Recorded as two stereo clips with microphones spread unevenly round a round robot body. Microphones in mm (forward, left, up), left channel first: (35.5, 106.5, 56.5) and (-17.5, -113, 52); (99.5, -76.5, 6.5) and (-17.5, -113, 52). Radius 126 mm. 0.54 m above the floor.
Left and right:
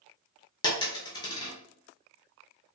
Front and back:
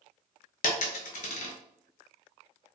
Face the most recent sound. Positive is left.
turn(degrees=15)